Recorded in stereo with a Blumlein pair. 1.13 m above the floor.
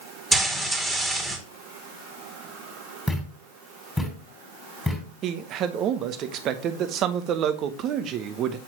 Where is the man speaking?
35° right, 1.0 m.